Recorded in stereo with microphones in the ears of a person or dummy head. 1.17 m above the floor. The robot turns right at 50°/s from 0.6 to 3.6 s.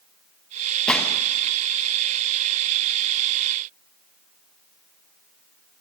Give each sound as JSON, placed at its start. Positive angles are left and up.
{"t": 0.9, "sound": "a gunshot", "side_deg": 0, "distance_m": 0.7}